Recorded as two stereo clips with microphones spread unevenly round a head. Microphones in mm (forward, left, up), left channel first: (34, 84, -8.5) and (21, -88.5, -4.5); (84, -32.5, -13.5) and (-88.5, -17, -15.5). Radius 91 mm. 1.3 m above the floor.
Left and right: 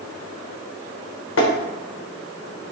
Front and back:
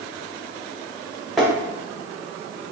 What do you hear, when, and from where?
1.4 s tapping: 85° left, 0.8 m